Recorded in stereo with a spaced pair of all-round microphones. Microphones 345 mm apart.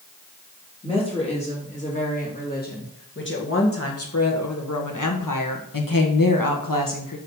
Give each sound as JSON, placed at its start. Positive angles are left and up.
{"t": 0.8, "sound": "a woman speaking", "side_deg": 15, "distance_m": 3.0}